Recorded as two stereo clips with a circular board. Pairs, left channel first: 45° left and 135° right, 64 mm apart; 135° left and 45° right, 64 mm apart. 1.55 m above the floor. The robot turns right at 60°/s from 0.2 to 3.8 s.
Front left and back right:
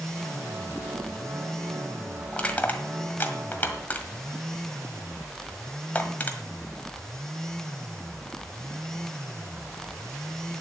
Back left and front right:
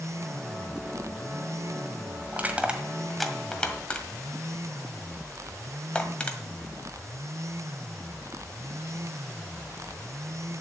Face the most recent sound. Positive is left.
turn(degrees=75)